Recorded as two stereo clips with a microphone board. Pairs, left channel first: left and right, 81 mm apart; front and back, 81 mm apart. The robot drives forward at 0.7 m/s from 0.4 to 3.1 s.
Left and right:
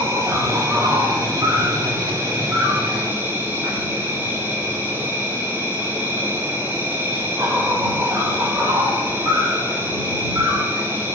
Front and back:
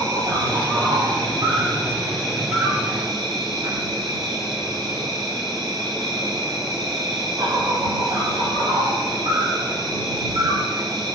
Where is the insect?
145° right, 7 m; by 11.2 s 155° right, 8.5 m.